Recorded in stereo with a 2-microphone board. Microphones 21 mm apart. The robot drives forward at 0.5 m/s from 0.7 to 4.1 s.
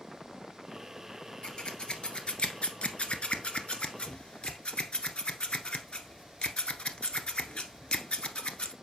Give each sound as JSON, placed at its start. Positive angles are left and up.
{"t": 1.4, "sound": "scissors", "side_deg": 45, "distance_m": 1.3}